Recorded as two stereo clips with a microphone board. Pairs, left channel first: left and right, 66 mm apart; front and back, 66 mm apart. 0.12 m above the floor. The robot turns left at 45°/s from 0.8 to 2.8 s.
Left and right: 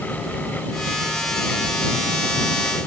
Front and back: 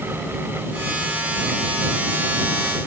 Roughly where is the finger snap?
I don't hear a finger snap.